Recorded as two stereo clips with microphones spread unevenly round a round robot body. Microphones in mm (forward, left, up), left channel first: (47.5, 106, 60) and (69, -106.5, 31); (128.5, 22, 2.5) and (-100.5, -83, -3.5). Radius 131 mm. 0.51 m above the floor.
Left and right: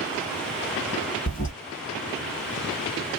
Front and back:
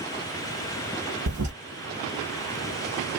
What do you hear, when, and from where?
1.3 s a toilet flushing: 155° left, 1.1 m